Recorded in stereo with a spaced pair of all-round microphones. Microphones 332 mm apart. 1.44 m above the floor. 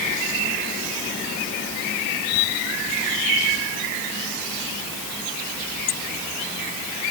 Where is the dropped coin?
No dropped coin in this recording.